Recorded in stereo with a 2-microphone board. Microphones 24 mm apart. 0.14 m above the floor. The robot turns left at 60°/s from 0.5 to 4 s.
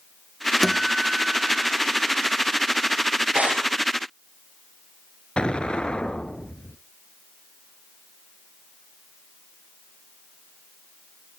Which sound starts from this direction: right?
Tearing paper, at 3.3 s.